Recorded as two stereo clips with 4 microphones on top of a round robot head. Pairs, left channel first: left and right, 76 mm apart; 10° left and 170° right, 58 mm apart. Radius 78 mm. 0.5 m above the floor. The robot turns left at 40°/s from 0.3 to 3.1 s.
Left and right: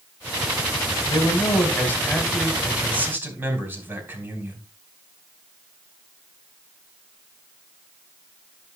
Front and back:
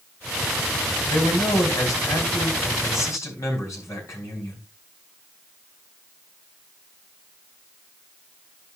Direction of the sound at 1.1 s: 55° left.